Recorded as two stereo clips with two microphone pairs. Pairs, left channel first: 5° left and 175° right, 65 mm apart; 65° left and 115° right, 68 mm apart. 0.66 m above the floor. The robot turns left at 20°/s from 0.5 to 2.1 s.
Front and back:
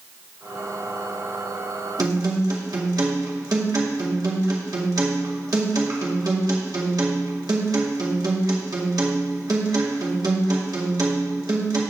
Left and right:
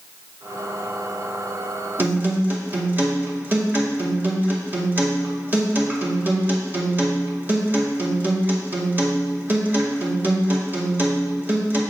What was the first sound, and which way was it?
A guitar, 170° right.